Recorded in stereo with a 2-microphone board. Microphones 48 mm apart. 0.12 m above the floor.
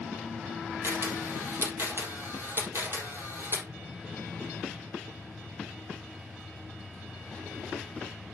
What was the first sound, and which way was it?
A camera shutter, 65° right (ahead or behind).